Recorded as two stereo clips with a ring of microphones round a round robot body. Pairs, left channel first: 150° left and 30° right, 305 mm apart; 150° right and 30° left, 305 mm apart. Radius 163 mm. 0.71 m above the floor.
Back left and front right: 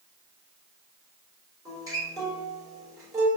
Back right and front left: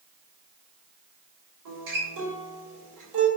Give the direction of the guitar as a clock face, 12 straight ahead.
10 o'clock.